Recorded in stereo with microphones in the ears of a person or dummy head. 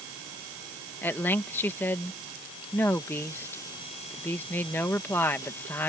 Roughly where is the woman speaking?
Centre.